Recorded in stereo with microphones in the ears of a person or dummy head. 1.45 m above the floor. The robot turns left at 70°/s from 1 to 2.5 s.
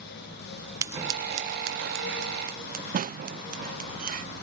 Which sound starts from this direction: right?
Scissors, at 0.8 s.